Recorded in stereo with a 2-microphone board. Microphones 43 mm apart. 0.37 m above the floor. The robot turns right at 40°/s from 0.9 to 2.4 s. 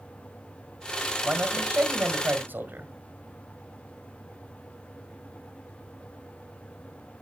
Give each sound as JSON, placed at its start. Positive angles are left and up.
{"t": 1.2, "sound": "a man speaking", "azimuth_deg": -135, "distance_m": 2.0}